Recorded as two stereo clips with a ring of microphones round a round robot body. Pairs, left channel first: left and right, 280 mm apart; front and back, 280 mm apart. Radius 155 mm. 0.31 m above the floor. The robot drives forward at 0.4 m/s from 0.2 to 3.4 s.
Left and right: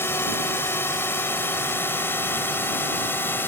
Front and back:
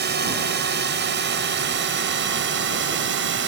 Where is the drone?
165° left; by 3.5 s 170° left.